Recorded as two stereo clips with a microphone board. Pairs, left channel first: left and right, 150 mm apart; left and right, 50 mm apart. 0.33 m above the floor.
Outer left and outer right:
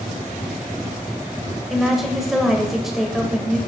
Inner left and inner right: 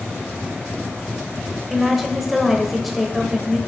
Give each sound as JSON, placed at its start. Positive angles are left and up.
{"t": 1.7, "sound": "a woman speaking", "side_deg": 0, "distance_m": 1.1}